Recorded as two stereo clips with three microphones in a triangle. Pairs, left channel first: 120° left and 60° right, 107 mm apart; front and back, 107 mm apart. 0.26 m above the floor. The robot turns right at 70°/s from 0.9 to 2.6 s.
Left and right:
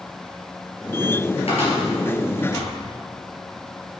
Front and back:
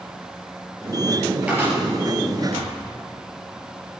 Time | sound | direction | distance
1.5 | a cupboard door | 100° left | 4 m